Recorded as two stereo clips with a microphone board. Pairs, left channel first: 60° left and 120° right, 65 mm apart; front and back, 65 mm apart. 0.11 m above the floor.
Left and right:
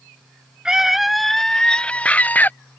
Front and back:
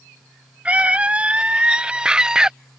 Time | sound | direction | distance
0.7 | a scream | 175° right | ?